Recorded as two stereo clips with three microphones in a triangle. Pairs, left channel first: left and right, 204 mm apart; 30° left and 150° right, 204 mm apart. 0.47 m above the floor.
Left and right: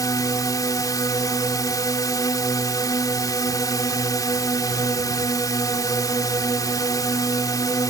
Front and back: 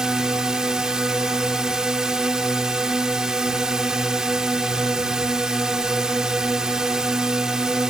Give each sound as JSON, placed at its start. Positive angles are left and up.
{"t": 0.0, "sound": "a drone", "azimuth_deg": 130}